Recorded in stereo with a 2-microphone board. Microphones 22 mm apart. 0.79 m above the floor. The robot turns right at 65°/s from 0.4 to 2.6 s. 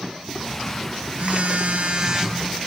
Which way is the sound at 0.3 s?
150° right.